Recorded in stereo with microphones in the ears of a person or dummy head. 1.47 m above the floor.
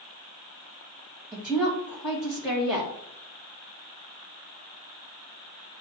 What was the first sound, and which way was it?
A woman speaking, centre (ahead or behind).